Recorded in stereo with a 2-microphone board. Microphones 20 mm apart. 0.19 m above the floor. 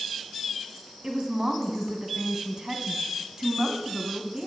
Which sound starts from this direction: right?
A woman speaking, at 1.0 s.